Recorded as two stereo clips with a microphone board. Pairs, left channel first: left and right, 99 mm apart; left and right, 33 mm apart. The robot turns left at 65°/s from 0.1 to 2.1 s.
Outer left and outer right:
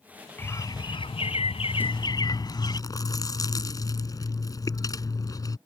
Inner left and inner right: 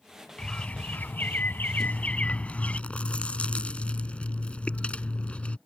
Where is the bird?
160° left; by 2.8 s 45° left.